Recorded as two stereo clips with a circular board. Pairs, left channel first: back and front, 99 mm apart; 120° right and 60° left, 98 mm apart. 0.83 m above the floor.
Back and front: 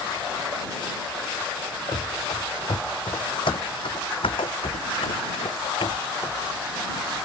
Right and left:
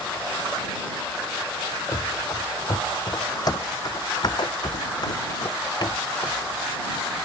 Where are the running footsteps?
165° right; by 6.4 s 160° right.